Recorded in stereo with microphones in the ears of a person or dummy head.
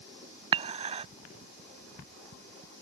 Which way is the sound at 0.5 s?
30° right (ahead or behind).